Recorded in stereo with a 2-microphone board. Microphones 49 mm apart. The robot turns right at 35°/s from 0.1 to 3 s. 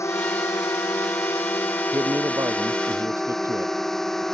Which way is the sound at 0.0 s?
70° left.